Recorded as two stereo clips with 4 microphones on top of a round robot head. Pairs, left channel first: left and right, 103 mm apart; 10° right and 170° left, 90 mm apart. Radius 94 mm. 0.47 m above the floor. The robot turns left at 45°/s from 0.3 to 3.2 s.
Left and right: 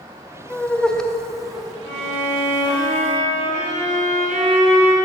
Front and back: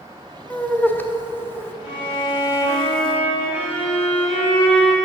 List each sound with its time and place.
0.5 s laughter: 40° left, 0.7 m; by 1.7 s 15° right, 0.7 m
1.8 s a violin: 40° right, 2 m; by 4.9 s 105° right, 2 m